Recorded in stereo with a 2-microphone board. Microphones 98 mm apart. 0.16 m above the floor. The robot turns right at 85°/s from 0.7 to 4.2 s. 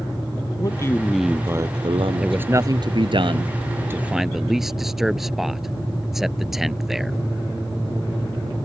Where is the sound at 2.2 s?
5° right (ahead or behind).